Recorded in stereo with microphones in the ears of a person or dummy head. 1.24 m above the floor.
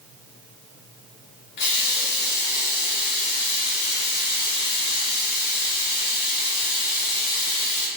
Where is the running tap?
60° left (ahead or behind), 0.8 m.